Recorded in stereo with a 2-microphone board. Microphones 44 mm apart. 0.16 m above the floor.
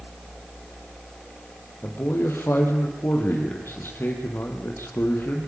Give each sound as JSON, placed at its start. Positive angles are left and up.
{"t": 1.8, "sound": "a man speaking", "side_deg": 55, "distance_m": 4.5}